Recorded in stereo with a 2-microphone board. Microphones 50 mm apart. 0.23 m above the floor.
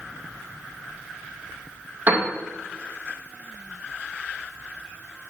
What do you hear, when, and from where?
2.1 s a piano: 30° right (ahead or behind), 2 m